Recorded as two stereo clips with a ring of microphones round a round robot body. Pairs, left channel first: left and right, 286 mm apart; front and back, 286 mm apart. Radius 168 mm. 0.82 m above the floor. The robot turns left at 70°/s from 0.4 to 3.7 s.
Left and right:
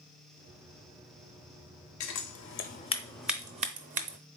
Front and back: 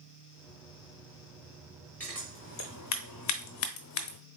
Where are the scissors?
85° left, 0.5 m; by 4.2 s 30° right, 0.5 m.